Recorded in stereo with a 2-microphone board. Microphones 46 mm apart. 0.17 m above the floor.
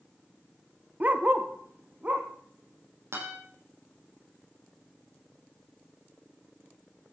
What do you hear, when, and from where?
1.0 s a dog barking: 40° right (ahead or behind), 1.4 m; by 2.3 s 35° right (ahead or behind), 3 m
3.1 s a guitar: 65° right (ahead or behind), 9 m